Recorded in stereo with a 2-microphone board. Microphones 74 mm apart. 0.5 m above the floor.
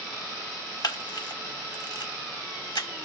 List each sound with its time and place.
0.8 s a camera shutter: 65° left (ahead or behind), 0.6 m